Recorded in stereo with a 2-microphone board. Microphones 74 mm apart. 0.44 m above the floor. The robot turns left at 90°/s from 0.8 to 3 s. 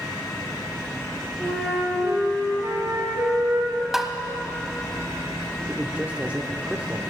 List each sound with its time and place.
1.4 s a flute: 10° left, 4 m; by 3.8 s 135° right, 4 m
3.9 s tapping: 5° right (ahead or behind), 0.7 m
5.7 s a man speaking: 20° right (ahead or behind), 0.8 m